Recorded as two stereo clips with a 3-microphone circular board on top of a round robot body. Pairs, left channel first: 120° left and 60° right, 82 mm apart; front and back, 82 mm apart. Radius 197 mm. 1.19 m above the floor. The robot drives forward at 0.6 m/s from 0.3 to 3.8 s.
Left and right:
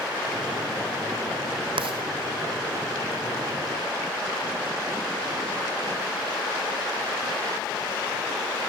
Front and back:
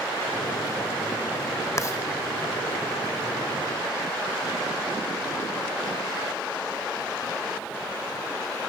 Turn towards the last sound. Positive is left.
turn(degrees=-105)